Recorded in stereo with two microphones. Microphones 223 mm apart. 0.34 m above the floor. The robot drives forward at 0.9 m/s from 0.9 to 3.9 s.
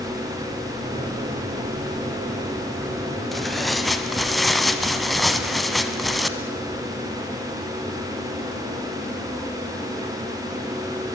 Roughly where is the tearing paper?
Centre.